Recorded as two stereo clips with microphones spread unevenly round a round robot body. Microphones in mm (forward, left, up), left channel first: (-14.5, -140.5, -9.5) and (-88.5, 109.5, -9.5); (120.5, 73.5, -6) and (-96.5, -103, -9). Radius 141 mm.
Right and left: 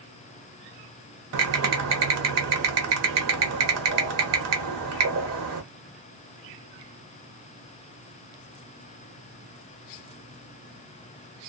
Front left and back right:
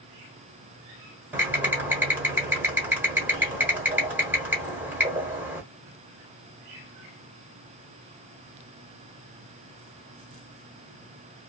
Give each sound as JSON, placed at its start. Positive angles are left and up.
{"t": 1.3, "sound": "typing on a keyboard", "azimuth_deg": 135, "distance_m": 1.2}